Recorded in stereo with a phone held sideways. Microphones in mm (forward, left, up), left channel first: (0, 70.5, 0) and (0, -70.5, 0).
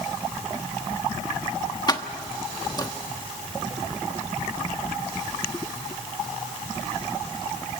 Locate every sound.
1.9 s keys jangling: 30° left (ahead or behind), 1.2 m